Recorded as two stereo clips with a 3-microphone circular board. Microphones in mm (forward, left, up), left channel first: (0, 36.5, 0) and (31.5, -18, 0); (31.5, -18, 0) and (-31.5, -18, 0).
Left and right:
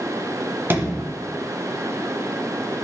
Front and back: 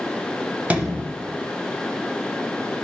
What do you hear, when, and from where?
0.7 s a sliding door: 115° right, 0.9 m